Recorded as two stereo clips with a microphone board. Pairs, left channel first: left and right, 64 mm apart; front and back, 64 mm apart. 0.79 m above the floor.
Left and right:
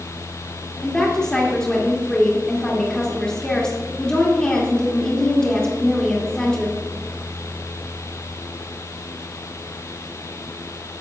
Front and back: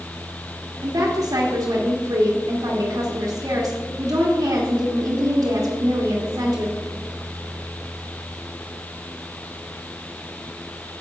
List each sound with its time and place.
0.8 s a woman speaking: 165° left, 1.6 m